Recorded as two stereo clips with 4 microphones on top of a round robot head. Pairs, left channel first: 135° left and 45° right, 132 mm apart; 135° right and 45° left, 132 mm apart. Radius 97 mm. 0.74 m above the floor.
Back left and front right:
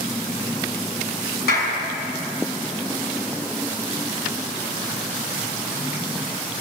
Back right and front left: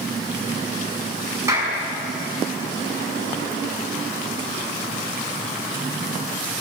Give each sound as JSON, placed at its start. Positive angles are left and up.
{"t": 1.5, "sound": "a clap", "azimuth_deg": 115, "distance_m": 6.0}